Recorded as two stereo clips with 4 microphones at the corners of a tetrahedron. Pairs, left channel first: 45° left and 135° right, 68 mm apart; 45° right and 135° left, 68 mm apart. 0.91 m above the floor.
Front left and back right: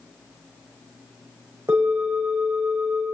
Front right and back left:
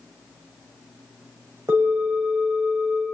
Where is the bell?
Straight behind, 5.5 m.